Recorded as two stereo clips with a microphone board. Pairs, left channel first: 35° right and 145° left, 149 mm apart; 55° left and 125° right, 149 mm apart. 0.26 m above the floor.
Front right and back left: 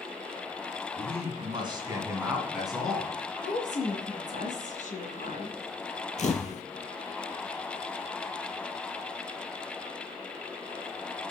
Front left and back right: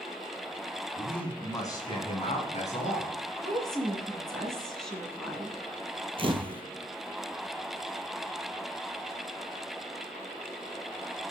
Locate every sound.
1.0 s a man speaking: 145° left, 2 m; by 3.1 s 45° left, 3 m
3.4 s a woman speaking: 30° right, 2 m
6.2 s a camera shutter: 70° right, 0.8 m